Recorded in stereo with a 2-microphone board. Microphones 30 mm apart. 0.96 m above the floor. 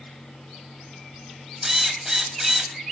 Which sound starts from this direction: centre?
A drill, at 1.6 s.